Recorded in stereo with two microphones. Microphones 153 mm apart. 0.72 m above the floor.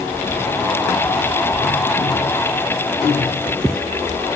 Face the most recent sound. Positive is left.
No sound to turn to.